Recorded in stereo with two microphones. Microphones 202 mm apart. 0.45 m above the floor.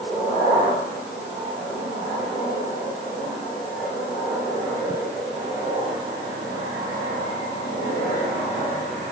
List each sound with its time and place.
Only background noise.